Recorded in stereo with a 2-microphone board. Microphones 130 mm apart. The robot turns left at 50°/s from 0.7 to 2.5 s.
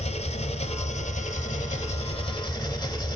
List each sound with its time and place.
0.0 s an engine running: 120° left, 0.9 m; by 3.2 s 30° left, 0.9 m